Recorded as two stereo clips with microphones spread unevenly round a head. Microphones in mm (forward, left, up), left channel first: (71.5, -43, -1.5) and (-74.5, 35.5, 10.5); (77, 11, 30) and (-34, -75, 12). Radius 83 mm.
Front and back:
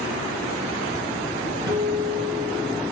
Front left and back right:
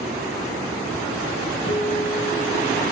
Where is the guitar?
85° left, 2.5 m.